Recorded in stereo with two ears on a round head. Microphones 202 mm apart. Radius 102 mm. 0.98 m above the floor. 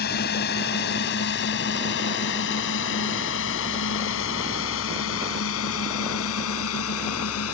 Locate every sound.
0.0 s a drone: 45° left (ahead or behind); by 7.5 s 70° left (ahead or behind)